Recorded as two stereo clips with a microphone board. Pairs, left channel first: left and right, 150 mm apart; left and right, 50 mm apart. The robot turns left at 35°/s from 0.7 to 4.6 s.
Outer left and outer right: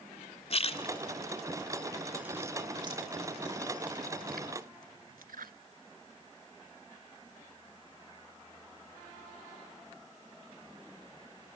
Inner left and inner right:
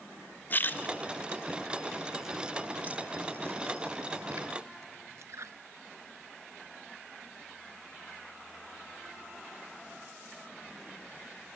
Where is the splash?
40° left (ahead or behind), 0.7 m; by 5.5 s 70° right (ahead or behind), 0.7 m.